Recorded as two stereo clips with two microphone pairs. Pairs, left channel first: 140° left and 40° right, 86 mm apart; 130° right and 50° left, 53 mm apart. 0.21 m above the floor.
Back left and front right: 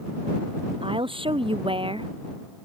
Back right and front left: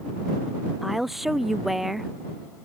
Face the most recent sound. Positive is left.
turn(degrees=-35)